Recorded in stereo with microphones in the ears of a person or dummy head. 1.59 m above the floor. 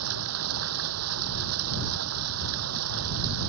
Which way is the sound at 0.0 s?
85° right.